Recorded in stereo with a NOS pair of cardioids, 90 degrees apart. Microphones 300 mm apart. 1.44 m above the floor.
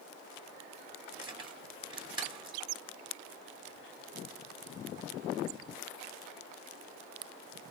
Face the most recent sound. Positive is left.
turn(degrees=-15)